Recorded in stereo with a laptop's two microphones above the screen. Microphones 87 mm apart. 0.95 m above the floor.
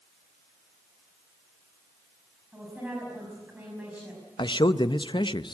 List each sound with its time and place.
2.5 s a woman speaking: 15° right (ahead or behind), 5.5 m
4.4 s a man speaking: 65° left (ahead or behind), 0.6 m